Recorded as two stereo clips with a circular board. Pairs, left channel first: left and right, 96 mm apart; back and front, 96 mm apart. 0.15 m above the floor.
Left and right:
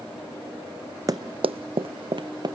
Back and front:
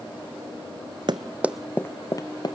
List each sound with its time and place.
1.1 s running footsteps: 40° right, 0.6 m; by 2.5 s 135° right, 1.1 m